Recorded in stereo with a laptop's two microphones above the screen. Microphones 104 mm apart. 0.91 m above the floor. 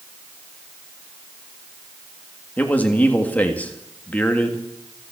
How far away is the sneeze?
No sneeze in this recording.